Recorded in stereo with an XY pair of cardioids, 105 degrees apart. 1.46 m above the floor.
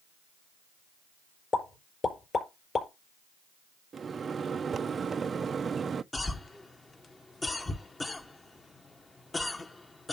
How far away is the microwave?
About 0.5 m.